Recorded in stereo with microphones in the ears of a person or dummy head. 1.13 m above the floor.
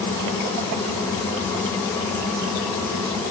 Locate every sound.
Only background noise.